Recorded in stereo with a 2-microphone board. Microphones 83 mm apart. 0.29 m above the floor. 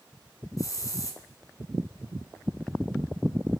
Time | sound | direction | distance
0.6 | a hiss | 45° left (ahead or behind) | 2 m